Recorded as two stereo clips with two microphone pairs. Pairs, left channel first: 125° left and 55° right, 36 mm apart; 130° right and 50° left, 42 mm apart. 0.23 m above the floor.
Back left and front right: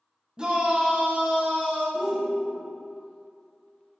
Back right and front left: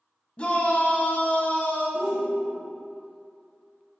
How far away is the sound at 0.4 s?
About 1.3 m.